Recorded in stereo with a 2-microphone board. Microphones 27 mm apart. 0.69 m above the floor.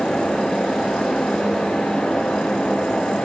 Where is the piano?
No piano in this recording.